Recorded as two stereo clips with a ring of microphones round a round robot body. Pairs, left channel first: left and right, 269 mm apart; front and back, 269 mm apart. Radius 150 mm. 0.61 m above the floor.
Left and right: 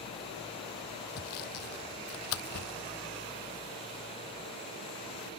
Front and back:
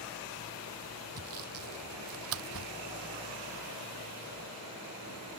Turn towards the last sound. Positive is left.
turn(degrees=135)